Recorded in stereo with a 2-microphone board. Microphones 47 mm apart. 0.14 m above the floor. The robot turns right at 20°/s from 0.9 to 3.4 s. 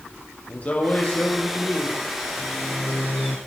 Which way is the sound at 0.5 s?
30° left (ahead or behind).